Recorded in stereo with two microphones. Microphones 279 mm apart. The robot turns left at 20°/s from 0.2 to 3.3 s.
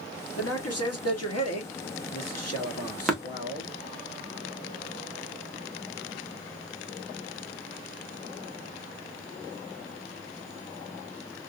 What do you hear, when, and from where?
0.4 s a man speaking: 120° left, 0.9 m; by 3.7 s 60° left, 0.9 m
3.1 s tapping: centre (ahead or behind), 1.1 m